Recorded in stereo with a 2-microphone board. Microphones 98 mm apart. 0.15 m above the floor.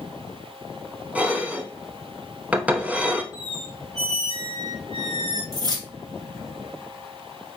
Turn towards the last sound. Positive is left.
turn(degrees=-45)  # may be behind; listen again after turning